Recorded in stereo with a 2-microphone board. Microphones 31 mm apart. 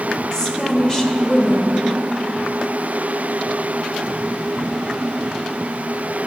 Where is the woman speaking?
30° left (ahead or behind), 1.5 m.